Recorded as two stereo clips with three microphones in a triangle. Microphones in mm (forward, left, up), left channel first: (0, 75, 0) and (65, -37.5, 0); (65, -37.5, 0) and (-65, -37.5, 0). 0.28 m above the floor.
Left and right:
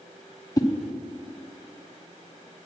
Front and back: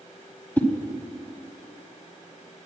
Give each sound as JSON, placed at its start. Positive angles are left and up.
{"t": 0.6, "sound": "a whoosh", "azimuth_deg": 70, "distance_m": 1.2}